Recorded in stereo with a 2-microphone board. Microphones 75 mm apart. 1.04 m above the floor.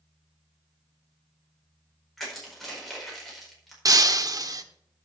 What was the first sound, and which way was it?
Crushing, 5° left (ahead or behind).